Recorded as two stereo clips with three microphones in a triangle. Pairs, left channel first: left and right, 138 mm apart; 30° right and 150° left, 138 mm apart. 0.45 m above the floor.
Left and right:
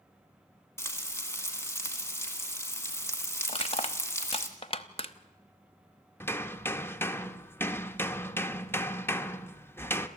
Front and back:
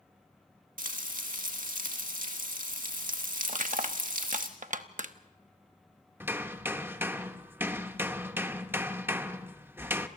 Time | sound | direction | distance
0.8 | frying | 160° left | 2 m
3.5 | crushing | 130° left | 0.9 m
6.2 | hammering | 115° left | 0.8 m